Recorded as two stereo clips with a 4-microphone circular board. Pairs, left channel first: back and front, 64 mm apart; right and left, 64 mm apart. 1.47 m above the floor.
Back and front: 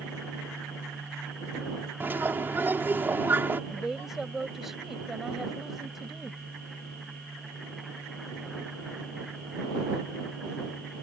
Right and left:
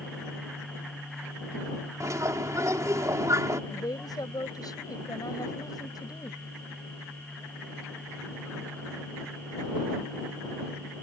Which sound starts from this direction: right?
A woman speaking, at 3.7 s.